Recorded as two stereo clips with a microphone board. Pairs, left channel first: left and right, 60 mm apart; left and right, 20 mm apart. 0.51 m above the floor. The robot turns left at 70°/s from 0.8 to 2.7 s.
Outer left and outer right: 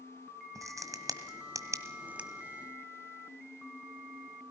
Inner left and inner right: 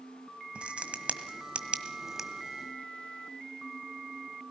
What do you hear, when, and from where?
0.6 s a crack: 60° right (ahead or behind), 1.6 m; by 2.3 s 15° right (ahead or behind), 1.6 m